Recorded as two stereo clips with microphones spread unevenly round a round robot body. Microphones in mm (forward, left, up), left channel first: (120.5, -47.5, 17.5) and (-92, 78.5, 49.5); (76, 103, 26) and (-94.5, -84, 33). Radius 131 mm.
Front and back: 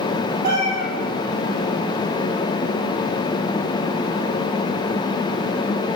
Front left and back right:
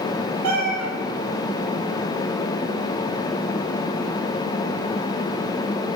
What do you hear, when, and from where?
0.4 s a cat meowing: 155° right, 2.5 m